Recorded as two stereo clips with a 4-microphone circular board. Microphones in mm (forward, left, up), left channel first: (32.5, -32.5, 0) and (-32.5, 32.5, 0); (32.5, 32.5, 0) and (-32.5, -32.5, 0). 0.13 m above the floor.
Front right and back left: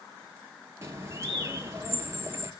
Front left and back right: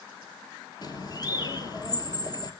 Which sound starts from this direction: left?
A bird, at 0.8 s.